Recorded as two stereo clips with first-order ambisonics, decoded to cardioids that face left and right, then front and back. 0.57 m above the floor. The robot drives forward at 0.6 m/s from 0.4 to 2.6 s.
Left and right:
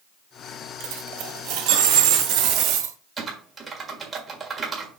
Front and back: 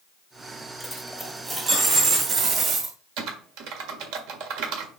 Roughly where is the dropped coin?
Right.